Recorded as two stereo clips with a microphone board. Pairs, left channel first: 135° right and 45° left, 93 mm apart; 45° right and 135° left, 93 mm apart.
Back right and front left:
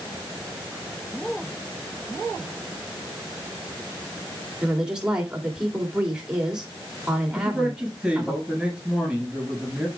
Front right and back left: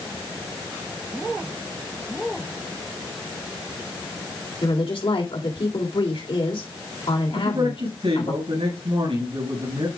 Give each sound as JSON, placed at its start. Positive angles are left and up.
{"t": 4.6, "sound": "a woman speaking", "azimuth_deg": -35, "distance_m": 3.0}
{"t": 7.3, "sound": "a man speaking", "azimuth_deg": 130, "distance_m": 6.5}